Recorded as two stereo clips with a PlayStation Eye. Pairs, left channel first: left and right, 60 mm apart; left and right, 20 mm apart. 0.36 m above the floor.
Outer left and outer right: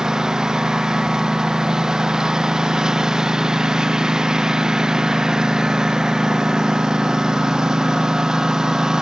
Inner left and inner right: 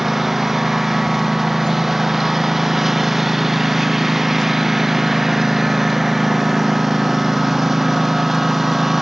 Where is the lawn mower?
10° right (ahead or behind).